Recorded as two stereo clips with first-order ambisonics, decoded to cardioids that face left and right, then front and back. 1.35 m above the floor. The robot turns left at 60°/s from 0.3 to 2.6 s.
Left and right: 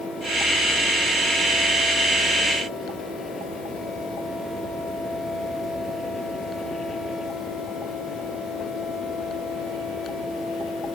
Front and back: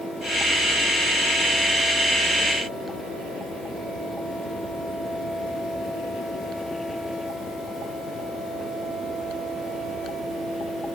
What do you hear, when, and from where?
Only background noise.